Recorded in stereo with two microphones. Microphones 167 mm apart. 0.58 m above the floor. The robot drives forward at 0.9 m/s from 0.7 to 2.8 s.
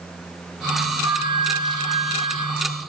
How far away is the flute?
About 5 m.